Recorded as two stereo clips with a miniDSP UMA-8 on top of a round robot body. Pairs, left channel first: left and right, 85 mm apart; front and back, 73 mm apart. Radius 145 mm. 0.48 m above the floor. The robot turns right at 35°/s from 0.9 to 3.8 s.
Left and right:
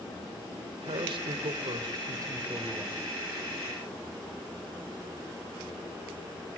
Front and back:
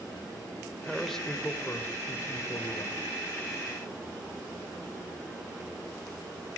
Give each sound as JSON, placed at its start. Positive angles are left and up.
{"t": 0.8, "sound": "a man speaking", "azimuth_deg": -90, "distance_m": 3.0}